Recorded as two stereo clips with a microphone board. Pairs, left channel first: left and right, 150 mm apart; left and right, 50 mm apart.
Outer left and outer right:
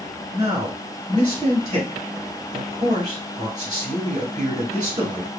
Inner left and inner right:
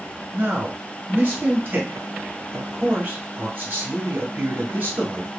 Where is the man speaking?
30° right (ahead or behind), 1.4 m.